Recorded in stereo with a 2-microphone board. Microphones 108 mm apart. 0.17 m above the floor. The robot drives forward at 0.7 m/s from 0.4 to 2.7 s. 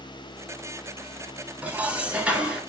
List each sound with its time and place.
1.6 s dishes clattering: 15° right (ahead or behind), 1.0 m; by 2.6 s 10° right (ahead or behind), 1.5 m